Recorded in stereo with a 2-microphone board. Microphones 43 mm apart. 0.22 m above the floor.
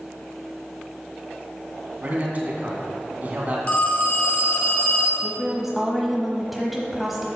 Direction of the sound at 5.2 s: 5° right (ahead or behind).